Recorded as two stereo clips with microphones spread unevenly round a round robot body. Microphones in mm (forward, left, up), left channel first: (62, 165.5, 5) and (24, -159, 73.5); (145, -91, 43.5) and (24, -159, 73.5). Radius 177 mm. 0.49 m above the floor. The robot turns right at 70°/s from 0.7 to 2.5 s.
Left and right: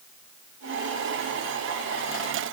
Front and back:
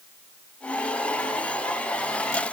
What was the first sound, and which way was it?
Only background noise.